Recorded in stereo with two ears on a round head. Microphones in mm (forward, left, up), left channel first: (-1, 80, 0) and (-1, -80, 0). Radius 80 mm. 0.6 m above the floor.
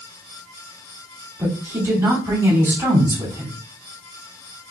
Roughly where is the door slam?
I don't hear a door slam.